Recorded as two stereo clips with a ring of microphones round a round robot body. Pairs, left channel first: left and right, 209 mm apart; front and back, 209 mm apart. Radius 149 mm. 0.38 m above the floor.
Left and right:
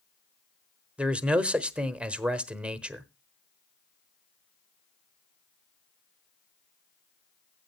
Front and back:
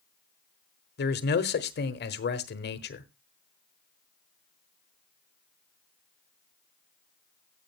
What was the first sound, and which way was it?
A man speaking, 5° right.